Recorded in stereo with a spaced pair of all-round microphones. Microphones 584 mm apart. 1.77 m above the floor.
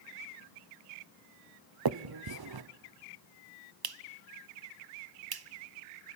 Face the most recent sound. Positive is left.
turn(degrees=-40)  # may be behind; listen again after turning